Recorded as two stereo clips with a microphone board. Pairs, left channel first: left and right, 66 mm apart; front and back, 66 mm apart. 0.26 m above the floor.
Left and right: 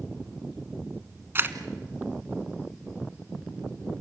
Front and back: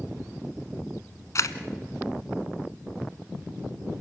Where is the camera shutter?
35° right, 1.2 m.